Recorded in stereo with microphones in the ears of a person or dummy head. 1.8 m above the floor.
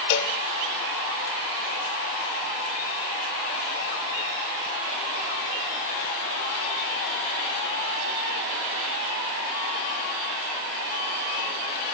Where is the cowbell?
60° left (ahead or behind), 1.4 m.